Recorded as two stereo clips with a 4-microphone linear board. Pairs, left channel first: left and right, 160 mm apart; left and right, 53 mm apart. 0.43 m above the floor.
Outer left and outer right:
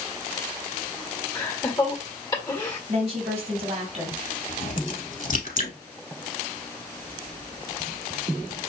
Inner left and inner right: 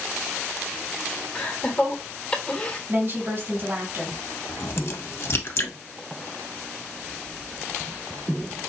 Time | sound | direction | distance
1.4 | laughter | 25° left (ahead or behind) | 1.4 m
2.9 | a woman speaking | 50° right (ahead or behind) | 2.5 m
4.5 | a crack | 55° left (ahead or behind) | 0.9 m